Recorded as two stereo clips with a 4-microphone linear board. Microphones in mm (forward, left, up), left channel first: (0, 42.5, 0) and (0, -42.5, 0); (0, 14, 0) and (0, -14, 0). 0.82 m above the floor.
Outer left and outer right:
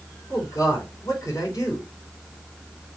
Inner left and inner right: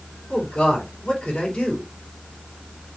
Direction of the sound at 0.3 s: 40° left (ahead or behind).